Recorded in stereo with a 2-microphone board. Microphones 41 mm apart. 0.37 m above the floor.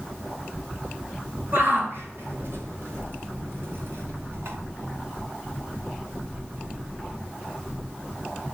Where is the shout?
60° right (ahead or behind), 6.5 m; by 4.6 s 75° right (ahead or behind), 4.5 m.